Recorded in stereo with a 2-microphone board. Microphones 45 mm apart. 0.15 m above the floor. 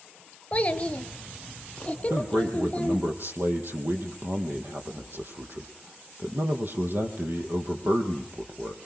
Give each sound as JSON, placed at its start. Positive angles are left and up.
{"t": 0.5, "sound": "a child speaking", "side_deg": 30, "distance_m": 1.7}
{"t": 2.1, "sound": "a man speaking", "side_deg": -55, "distance_m": 4.0}